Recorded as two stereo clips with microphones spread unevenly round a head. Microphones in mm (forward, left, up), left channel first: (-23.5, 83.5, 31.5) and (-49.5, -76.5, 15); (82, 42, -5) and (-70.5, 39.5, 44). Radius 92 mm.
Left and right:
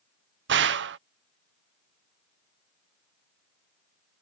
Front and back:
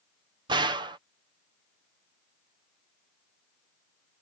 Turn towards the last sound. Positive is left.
turn(degrees=-110)